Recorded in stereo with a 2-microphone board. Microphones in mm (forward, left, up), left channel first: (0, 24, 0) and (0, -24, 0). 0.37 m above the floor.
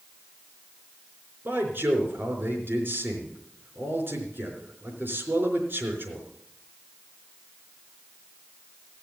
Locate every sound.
1.4 s a man speaking: 50° right (ahead or behind), 4.5 m